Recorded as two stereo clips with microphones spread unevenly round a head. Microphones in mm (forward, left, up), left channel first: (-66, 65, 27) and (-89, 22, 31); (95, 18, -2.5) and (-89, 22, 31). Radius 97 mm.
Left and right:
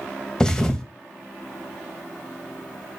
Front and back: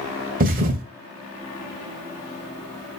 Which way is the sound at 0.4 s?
140° left.